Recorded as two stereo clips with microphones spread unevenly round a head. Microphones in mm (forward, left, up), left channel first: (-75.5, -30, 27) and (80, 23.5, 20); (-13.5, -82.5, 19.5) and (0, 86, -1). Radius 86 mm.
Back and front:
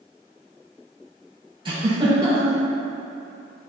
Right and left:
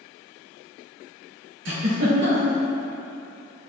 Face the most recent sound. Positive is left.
turn(degrees=80)